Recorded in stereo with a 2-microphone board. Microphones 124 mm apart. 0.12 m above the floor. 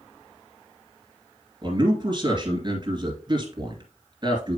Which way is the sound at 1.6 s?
40° right (ahead or behind).